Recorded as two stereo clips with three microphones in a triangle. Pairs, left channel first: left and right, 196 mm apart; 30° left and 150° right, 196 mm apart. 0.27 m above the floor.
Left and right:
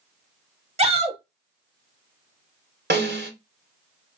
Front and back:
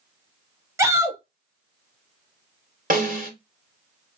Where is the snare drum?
110° right, 1.8 m.